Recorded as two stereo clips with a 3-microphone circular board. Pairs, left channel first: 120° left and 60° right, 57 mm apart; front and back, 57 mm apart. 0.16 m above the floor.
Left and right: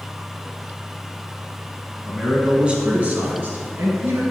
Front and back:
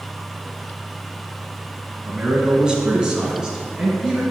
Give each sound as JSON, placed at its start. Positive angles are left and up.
{"t": 2.0, "sound": "a man speaking", "azimuth_deg": -135, "distance_m": 1.1}